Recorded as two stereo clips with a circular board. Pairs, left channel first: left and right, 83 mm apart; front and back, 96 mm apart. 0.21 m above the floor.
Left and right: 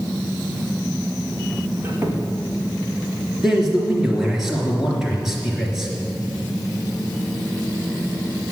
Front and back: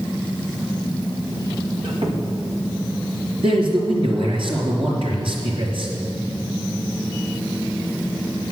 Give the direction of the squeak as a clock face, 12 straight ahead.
5 o'clock.